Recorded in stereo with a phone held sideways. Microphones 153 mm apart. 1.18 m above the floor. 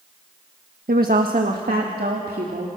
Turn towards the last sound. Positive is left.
turn(degrees=-75)  # may be behind; listen again after turning